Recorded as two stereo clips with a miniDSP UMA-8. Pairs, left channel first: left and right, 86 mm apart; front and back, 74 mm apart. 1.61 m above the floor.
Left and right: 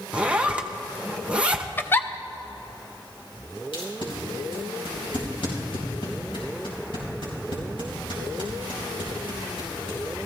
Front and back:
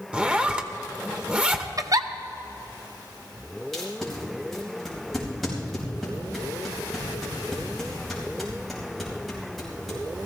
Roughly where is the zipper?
Behind right.